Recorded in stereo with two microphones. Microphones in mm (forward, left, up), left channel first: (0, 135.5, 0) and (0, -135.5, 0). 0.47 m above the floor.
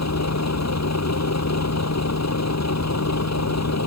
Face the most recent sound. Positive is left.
turn(degrees=75)  # may be behind; listen again after turning